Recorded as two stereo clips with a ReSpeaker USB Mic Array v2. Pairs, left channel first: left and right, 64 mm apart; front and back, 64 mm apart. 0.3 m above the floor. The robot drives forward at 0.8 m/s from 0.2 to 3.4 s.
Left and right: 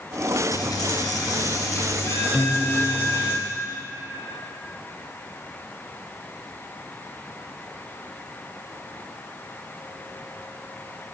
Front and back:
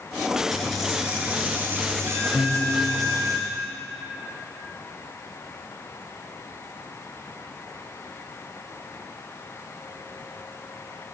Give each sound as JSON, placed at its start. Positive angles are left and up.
{"t": 0.5, "sound": "a dropped coin", "azimuth_deg": 85, "distance_m": 1.5}
{"t": 2.3, "sound": "a piano", "azimuth_deg": 175, "distance_m": 0.9}